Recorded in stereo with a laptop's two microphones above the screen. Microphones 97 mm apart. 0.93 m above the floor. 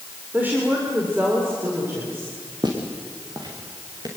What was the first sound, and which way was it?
A woman speaking, 20° right (ahead or behind).